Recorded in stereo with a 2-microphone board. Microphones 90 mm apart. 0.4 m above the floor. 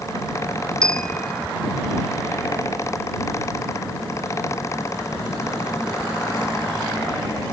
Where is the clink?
10° left (ahead or behind).